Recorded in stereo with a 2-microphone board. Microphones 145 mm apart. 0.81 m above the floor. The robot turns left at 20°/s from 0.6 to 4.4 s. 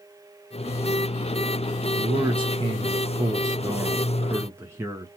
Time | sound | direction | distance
2.0 | a man speaking | 100° right | 0.7 m